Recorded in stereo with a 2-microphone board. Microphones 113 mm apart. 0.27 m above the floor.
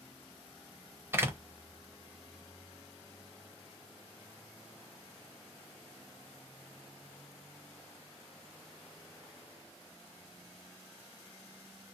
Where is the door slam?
20° right (ahead or behind), 0.6 m.